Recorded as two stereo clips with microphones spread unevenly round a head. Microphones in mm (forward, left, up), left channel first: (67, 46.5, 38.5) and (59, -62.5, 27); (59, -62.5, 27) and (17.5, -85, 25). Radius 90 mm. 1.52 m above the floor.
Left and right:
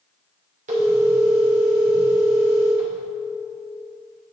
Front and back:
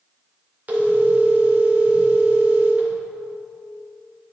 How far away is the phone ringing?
About 2.5 m.